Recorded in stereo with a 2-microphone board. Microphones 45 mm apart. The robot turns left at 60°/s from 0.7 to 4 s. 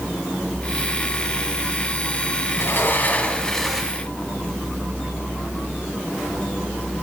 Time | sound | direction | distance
2.6 | a sliding door | 70° left | 2.5 m